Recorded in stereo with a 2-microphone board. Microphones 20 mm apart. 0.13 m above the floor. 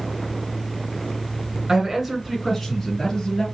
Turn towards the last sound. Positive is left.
turn(degrees=30)  # may be behind; listen again after turning